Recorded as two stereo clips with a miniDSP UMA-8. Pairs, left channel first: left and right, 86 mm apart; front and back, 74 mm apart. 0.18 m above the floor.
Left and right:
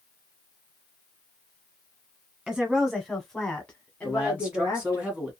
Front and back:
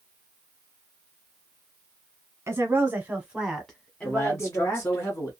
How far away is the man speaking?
About 1.4 m.